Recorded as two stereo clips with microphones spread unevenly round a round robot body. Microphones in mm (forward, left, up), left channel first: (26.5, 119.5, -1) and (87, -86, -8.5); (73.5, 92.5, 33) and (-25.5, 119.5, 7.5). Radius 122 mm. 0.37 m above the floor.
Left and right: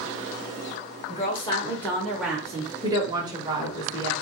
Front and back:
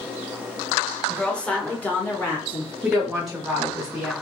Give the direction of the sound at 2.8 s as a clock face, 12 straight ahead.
4 o'clock.